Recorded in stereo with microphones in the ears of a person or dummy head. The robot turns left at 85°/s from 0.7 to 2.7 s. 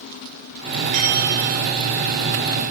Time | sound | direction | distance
0.9 | a bell | 50° right | 6.5 m